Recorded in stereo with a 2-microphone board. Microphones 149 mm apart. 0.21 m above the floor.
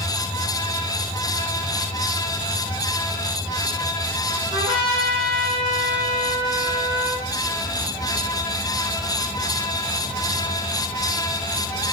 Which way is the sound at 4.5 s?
35° right (ahead or behind).